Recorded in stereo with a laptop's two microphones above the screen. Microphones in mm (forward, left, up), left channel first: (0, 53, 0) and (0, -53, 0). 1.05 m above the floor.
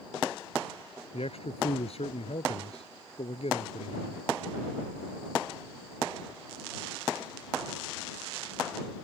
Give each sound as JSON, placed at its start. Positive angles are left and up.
{"t": 1.1, "sound": "a man speaking", "side_deg": 70}